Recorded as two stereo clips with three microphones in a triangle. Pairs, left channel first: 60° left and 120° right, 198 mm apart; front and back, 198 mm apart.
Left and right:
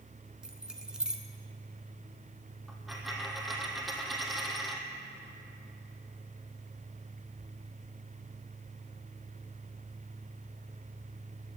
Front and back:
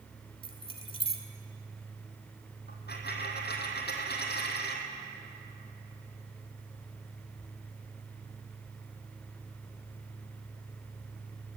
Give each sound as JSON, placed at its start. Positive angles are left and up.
{"t": 0.4, "sound": "keys jangling", "azimuth_deg": -35, "distance_m": 1.1}
{"t": 2.7, "sound": "a dropped coin", "azimuth_deg": -30, "distance_m": 1.8}